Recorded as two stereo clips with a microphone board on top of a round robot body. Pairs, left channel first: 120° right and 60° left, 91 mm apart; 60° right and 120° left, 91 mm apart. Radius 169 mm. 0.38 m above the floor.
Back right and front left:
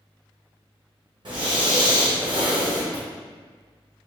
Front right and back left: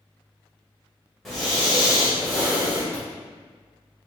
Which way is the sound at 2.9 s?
75° left.